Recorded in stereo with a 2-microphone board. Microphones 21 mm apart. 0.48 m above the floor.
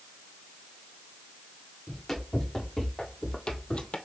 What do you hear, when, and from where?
1.9 s running footsteps: 10° left (ahead or behind), 2 m; by 4.0 s 60° left (ahead or behind), 0.8 m